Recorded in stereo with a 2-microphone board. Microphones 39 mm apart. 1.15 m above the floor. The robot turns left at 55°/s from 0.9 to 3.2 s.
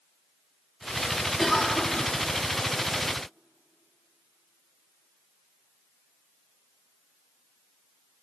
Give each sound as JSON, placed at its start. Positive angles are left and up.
{"t": 1.4, "sound": "a cough", "azimuth_deg": 180, "distance_m": 2.0}